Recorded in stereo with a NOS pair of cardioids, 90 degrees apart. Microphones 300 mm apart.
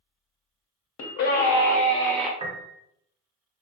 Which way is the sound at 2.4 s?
15° right.